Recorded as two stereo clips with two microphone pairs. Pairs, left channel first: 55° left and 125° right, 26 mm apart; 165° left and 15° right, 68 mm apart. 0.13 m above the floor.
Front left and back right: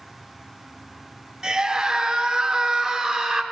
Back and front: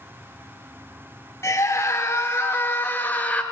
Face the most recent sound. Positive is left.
turn(degrees=145)